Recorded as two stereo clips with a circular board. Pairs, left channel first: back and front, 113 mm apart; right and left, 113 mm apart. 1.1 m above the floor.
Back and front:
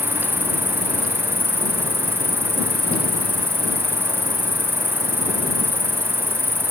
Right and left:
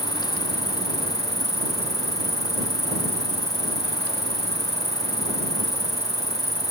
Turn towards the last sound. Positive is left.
turn(degrees=70)